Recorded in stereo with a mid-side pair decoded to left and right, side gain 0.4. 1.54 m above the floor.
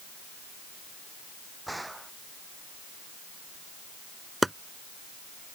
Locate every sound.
1.7 s a gunshot: 10° right
4.4 s chopping: 10° right